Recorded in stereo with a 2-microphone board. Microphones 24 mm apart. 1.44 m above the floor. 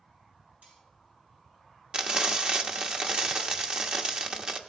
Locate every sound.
0.6 s cutlery clinking: 85° right, 6 m
1.9 s frying: 40° right (ahead or behind), 1.1 m